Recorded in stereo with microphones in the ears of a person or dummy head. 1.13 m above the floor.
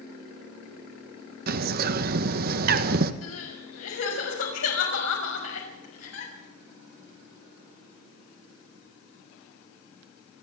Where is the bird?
50° right (ahead or behind), 1.3 m.